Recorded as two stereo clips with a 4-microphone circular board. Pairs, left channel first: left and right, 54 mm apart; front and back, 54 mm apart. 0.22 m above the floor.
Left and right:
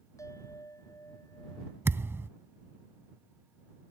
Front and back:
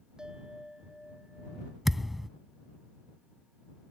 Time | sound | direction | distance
0.2 | a bell | 100° left | ?
1.9 | a thud | 100° right | ?